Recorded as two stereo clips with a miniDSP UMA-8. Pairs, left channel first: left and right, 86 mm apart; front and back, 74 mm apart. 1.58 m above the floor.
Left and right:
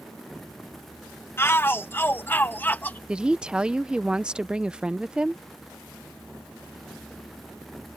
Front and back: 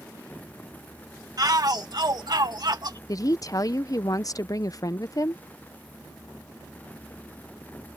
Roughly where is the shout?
Behind left.